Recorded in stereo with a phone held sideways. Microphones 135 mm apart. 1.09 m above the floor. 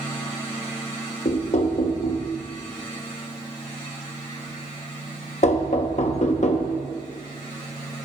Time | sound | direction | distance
1.2 | knocking | 55° left (ahead or behind) | 0.8 m